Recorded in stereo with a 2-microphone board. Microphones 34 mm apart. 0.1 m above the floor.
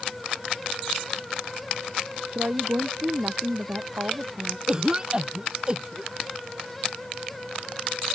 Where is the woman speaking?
70° right (ahead or behind); by 4.6 s 65° right (ahead or behind).